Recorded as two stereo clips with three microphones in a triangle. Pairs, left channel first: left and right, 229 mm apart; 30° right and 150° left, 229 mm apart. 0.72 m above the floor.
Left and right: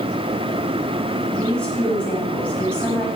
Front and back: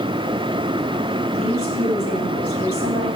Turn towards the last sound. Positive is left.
turn(degrees=175)